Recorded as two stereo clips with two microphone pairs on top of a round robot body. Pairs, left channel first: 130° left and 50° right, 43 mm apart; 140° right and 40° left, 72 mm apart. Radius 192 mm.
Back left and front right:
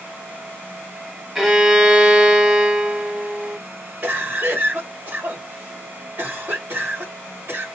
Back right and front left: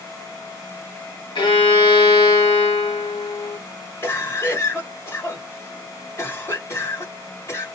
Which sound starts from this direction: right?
A cough, at 4.0 s.